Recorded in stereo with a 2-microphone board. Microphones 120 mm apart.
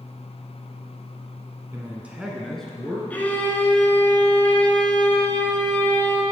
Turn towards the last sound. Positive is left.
turn(degrees=15)  # may be behind; listen again after turning